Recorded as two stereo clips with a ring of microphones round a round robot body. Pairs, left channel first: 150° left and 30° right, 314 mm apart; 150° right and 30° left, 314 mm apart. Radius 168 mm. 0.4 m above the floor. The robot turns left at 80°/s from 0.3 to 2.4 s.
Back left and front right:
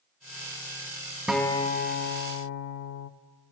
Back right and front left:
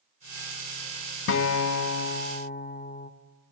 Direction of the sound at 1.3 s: 115° right.